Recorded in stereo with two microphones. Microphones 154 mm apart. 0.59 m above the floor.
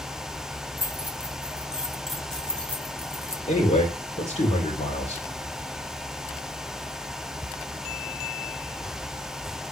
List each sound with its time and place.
0.8 s keys jangling: 10° right (ahead or behind), 2.5 m; by 3.4 s 20° left (ahead or behind), 1.2 m
3.5 s a man speaking: 40° left (ahead or behind), 2 m